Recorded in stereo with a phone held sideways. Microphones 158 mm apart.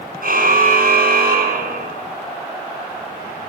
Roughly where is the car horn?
Right.